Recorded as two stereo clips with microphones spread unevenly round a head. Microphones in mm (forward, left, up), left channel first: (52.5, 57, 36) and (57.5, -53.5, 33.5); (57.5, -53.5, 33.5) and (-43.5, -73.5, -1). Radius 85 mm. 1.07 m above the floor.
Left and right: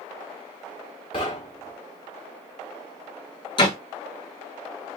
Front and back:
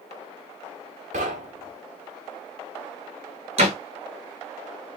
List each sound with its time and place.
1.1 s knocking: 150° left, 0.8 m
3.6 s a door slam: 150° left, 1.0 m